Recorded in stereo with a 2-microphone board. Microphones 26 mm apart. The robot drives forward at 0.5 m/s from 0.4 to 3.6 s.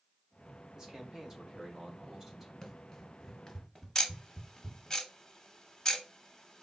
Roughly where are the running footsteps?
Centre.